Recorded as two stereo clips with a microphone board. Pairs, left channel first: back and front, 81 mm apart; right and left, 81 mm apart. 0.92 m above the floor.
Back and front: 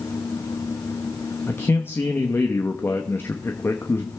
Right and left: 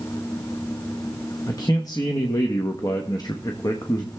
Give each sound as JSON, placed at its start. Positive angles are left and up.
{"t": 1.5, "sound": "a man speaking", "azimuth_deg": -120, "distance_m": 0.9}